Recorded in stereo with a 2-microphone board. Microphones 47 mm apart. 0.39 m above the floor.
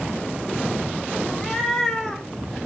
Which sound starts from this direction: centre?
A cat meowing, at 1.3 s.